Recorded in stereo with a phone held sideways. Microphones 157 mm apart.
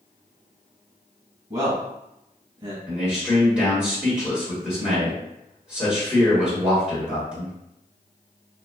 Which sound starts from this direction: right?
A man speaking, at 1.5 s.